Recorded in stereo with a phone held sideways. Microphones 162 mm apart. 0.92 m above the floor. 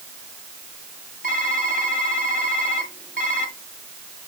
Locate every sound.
1.2 s typing on a keyboard: 60° right (ahead or behind), 1.7 m